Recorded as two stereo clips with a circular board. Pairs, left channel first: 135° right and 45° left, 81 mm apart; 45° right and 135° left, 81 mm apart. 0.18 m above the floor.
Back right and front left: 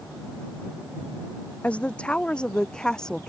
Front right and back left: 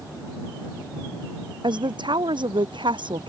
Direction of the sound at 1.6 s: 150° left.